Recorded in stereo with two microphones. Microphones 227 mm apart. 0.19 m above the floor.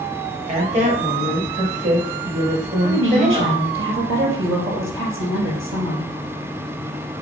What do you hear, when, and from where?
0.5 s a woman speaking: 35° right (ahead or behind), 3.5 m
2.8 s a woman speaking: 60° right (ahead or behind), 3.5 m